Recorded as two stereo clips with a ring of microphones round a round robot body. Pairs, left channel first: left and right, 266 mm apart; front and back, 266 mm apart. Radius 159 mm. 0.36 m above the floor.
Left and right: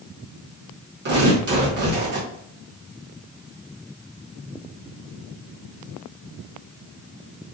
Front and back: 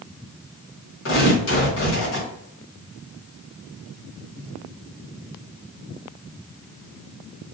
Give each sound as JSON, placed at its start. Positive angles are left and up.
{"t": 1.1, "sound": "tearing paper", "azimuth_deg": -40, "distance_m": 1.7}